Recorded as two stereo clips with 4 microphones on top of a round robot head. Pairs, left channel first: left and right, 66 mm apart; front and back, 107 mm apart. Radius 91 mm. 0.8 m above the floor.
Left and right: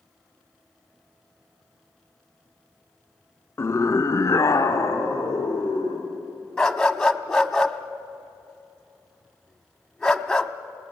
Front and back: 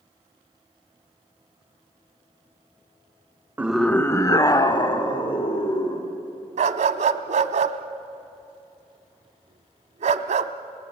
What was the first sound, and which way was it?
A scream, 115° left.